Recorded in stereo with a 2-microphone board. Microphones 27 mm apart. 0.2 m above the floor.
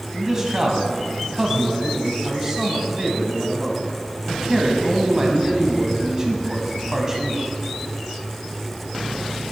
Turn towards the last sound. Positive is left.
turn(degrees=-20)  # may be behind; listen again after turning